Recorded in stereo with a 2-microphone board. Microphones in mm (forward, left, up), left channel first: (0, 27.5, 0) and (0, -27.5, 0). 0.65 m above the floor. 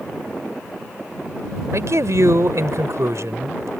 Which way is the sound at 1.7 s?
70° right (ahead or behind).